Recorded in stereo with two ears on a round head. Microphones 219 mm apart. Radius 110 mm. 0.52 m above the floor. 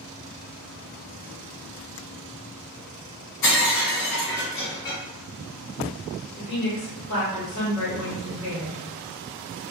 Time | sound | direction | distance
3.4 | breaking glass | 70° left (ahead or behind) | 1.5 m
6.4 | a woman speaking | 50° left (ahead or behind) | 1.4 m